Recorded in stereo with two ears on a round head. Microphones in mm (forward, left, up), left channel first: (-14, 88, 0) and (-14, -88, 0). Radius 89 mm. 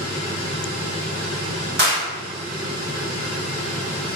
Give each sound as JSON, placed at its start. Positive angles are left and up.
{"t": 1.8, "sound": "a clap", "side_deg": -60, "distance_m": 1.8}